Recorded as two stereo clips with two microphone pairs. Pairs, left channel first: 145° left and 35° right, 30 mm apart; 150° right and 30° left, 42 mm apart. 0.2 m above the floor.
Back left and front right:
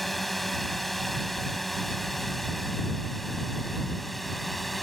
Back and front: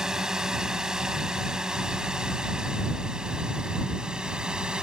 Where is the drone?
65° left; by 4.8 s 60° left.